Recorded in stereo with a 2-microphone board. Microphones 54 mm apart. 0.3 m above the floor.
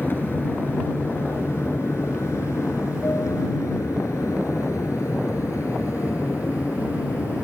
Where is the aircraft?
45° left (ahead or behind); by 7.5 s 60° left (ahead or behind).